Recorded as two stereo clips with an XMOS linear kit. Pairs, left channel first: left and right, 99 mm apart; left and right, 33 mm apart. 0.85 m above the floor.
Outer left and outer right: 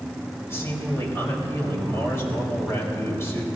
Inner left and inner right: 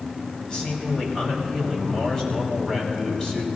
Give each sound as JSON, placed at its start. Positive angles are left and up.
{"t": 0.5, "sound": "a man speaking", "side_deg": 30, "distance_m": 4.0}